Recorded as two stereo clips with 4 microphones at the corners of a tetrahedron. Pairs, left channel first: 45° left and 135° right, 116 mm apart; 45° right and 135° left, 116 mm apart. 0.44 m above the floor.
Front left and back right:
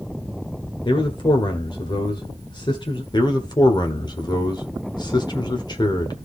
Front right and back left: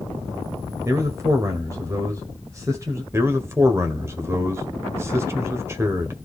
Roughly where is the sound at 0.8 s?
Left.